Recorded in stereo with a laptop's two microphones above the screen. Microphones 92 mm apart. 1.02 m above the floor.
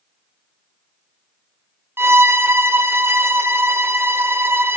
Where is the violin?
25° right (ahead or behind), 0.6 m.